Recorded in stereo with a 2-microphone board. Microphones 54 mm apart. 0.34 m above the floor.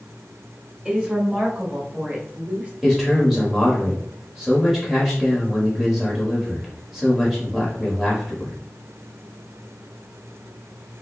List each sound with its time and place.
0.8 s a woman speaking: 20° right (ahead or behind), 1.3 m; by 2.7 s 25° right (ahead or behind), 1.3 m
2.8 s a man speaking: 5° right (ahead or behind), 1.2 m